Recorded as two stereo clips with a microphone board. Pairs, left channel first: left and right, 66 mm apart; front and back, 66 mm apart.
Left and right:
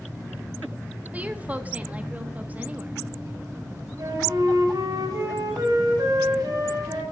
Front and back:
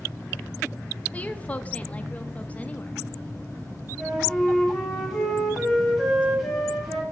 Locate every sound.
1.1 s a woman speaking: 45° right, 0.7 m
4.0 s a flute: 95° right, 2.5 m